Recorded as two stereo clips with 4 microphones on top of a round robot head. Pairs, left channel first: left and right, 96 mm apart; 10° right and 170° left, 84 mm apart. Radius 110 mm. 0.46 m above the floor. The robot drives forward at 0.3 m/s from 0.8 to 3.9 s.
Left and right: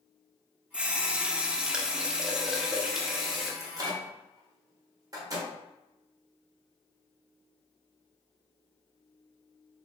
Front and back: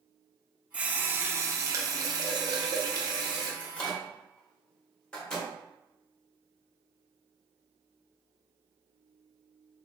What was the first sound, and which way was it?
A running tap, 145° right.